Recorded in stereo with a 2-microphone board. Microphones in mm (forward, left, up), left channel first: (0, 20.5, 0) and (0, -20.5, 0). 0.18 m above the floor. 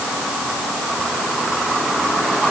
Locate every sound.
Only background noise.